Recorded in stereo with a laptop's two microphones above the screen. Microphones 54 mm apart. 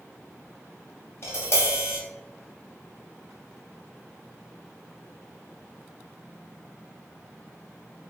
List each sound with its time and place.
1.2 s tapping: 50° left (ahead or behind), 1.3 m